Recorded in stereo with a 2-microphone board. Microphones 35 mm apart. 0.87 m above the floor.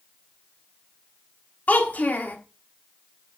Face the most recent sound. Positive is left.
turn(degrees=50)  # may be behind; listen again after turning